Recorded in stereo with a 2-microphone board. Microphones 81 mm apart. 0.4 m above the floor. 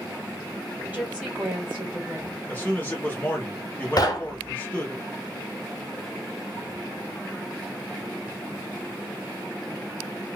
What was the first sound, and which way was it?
A woman speaking, 20° right (ahead or behind).